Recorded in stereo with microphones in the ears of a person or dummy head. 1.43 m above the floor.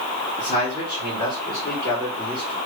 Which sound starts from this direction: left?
A man speaking, at 0.4 s.